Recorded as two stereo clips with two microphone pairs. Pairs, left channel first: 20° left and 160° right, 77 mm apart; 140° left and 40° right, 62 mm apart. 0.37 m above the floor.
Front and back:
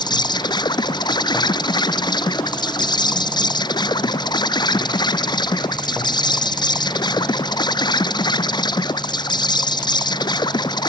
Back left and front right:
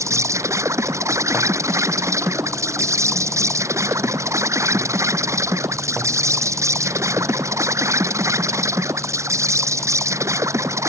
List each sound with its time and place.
0.0 s an insect: 5° right